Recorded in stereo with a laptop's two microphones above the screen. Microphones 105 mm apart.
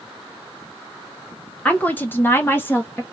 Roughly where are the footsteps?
No footsteps in this recording.